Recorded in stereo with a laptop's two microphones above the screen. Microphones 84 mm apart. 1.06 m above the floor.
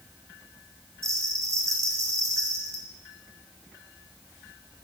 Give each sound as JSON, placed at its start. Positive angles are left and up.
{"t": 1.0, "sound": "a bell", "side_deg": -35, "distance_m": 1.1}